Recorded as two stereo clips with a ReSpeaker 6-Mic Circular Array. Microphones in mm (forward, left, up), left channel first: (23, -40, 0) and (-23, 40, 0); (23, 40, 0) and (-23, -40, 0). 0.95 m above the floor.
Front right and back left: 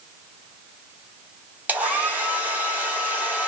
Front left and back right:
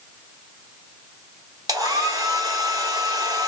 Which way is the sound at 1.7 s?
165° right.